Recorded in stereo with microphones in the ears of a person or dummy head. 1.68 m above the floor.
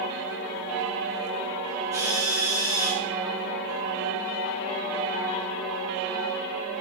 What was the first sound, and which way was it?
A drill, 15° right (ahead or behind).